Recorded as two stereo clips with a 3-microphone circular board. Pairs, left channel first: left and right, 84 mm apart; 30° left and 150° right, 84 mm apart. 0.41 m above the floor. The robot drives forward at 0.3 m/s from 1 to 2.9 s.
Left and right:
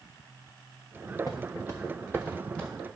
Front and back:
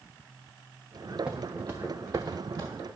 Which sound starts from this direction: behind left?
Footsteps, at 1.3 s.